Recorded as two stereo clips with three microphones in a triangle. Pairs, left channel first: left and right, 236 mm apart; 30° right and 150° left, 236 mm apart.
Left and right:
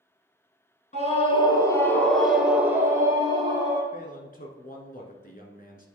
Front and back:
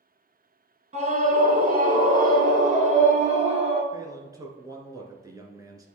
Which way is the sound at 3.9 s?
85° left.